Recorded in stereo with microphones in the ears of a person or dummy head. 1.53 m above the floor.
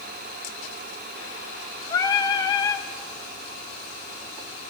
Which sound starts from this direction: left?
Singing, at 1.9 s.